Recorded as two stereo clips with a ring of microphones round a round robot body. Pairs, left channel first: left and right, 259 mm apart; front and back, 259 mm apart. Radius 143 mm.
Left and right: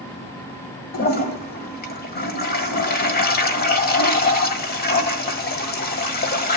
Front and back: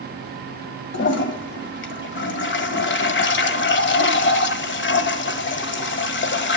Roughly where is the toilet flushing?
Ahead left.